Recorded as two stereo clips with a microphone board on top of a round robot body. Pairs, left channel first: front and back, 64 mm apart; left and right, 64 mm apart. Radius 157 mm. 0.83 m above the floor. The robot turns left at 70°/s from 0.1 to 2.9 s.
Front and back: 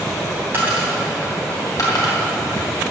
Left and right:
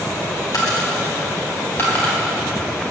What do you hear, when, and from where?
0.5 s a dropped coin: 125° left, 3 m; by 2.2 s 5° left, 3 m